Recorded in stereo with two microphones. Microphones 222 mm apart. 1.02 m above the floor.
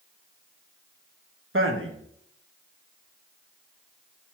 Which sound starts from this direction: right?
A man speaking, at 1.5 s.